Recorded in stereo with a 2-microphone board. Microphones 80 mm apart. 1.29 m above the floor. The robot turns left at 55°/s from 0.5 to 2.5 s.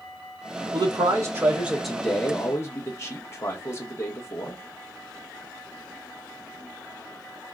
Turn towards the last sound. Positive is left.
turn(degrees=145)